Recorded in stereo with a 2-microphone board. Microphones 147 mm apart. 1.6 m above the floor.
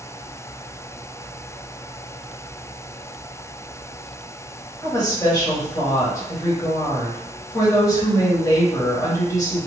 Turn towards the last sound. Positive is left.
turn(degrees=25)  # may be behind; listen again after turning